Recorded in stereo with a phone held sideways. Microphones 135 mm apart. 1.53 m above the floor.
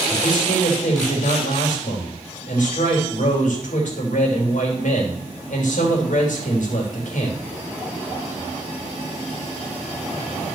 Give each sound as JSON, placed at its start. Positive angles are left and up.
{"t": 0.1, "sound": "a man speaking", "side_deg": 65, "distance_m": 3.5}